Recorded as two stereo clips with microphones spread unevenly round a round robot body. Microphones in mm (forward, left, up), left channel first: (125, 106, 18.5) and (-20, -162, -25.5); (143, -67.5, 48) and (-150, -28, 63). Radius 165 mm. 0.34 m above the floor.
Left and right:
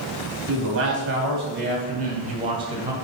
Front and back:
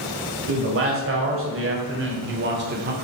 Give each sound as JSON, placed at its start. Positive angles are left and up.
{"t": 0.5, "sound": "a man speaking", "azimuth_deg": -155, "distance_m": 2.5}